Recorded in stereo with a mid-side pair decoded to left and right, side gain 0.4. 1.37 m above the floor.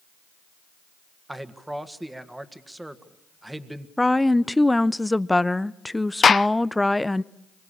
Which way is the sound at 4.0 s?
10° left.